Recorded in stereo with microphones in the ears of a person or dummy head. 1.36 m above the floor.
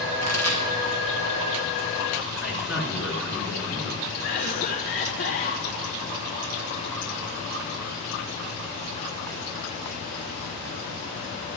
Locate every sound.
0.2 s a pop: 85° right, 2.5 m
2.4 s a man speaking: 10° right (ahead or behind), 3.5 m
4.2 s a cough: 35° left (ahead or behind), 1.3 m